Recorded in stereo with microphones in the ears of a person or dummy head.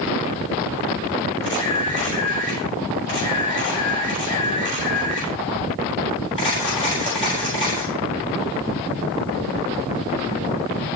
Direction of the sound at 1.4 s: 25° left (ahead or behind).